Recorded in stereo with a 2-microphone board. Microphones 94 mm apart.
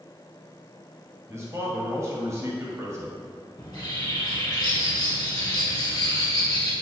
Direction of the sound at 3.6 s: 45° left (ahead or behind).